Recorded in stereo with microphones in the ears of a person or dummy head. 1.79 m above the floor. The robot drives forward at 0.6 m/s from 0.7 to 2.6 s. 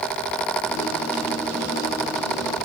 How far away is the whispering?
No whispering in this recording.